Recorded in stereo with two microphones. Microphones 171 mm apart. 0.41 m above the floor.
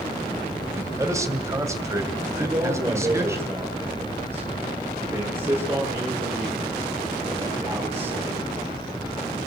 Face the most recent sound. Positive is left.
turn(degrees=-15)  # may be behind; listen again after turning